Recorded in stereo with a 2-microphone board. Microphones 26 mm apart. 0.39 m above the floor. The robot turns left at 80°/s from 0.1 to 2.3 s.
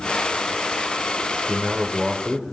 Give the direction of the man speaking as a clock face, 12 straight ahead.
3 o'clock.